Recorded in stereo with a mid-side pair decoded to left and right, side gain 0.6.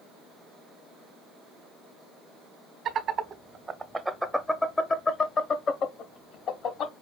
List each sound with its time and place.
2.9 s laughter: 55° right, 1.0 m; by 6.9 s 60° left, 1.8 m